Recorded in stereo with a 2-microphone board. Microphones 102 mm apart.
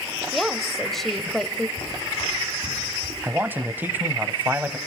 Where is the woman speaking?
Centre (ahead or behind), 1.0 m.